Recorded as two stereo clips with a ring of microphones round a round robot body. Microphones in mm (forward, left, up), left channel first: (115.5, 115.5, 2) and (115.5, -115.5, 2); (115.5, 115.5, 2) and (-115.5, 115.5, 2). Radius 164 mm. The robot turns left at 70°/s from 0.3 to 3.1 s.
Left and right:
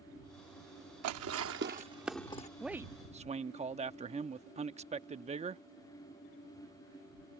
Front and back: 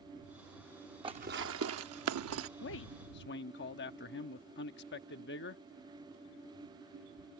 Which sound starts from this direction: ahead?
A man speaking, at 2.6 s.